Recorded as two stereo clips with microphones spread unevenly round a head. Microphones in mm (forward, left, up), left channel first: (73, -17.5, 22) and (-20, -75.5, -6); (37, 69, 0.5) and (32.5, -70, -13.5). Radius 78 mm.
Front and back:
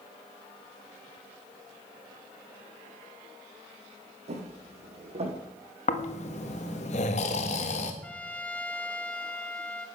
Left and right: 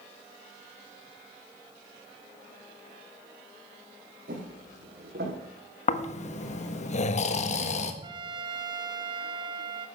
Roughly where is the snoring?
Ahead left.